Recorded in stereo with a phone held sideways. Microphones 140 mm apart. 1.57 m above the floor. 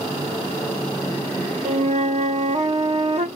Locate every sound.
1.6 s a flute: 55° right (ahead or behind), 0.6 m